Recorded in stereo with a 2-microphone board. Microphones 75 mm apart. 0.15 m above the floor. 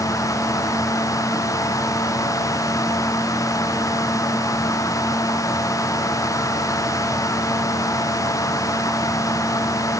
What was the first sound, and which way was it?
Only background noise.